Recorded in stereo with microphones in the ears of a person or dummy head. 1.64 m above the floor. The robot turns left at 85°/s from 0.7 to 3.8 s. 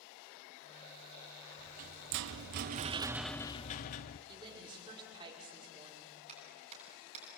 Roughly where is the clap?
Right.